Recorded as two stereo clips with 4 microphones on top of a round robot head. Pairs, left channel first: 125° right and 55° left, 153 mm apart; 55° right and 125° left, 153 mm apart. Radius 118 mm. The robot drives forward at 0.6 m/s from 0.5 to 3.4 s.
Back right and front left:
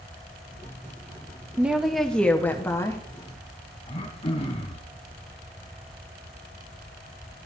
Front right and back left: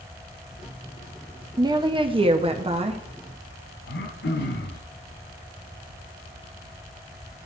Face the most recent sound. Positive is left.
turn(degrees=-65)